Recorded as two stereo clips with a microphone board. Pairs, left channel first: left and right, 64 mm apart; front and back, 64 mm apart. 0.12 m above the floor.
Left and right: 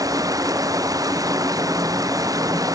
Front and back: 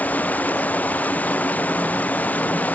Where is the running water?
65° right.